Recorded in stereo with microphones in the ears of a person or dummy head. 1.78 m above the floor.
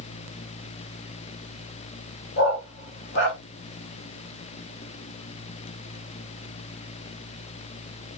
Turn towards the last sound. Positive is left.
turn(degrees=60)  # may be behind; listen again after turning